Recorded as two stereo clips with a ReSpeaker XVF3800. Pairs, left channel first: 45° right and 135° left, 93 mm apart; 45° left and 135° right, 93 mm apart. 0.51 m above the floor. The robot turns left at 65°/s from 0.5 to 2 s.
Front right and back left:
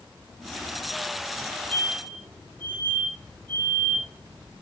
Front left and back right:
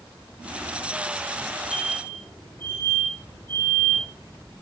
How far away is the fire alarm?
About 7 m.